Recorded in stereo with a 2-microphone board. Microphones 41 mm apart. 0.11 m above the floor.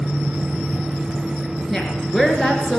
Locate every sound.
1.7 s a woman speaking: centre (ahead or behind), 1.7 m